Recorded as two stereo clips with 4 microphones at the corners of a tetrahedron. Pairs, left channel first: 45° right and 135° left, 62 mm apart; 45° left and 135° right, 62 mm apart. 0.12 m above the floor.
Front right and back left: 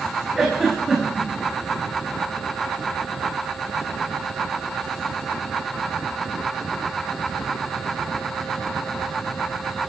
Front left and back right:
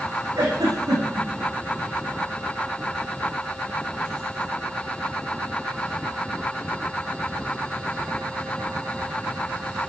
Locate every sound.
0.3 s a giggle: 140° right, 6.5 m